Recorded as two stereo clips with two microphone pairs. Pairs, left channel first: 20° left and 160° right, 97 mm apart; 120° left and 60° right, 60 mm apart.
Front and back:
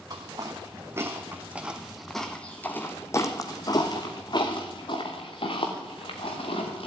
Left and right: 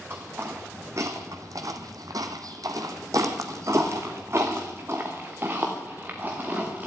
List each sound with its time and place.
0.1 s footsteps: 110° right, 1.8 m; by 6.9 s 5° left, 3 m